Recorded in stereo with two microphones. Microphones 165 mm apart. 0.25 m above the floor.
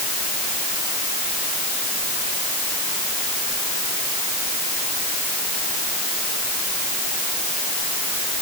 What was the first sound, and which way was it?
Only background noise.